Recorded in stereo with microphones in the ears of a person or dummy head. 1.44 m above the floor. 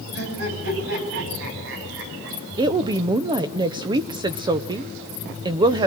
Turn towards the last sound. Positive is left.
turn(degrees=-25)  # may be behind; listen again after turning